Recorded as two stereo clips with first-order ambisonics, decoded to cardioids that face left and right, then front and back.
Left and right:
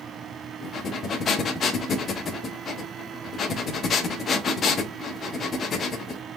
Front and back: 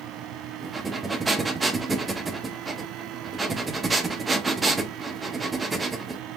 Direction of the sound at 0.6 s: 115° left.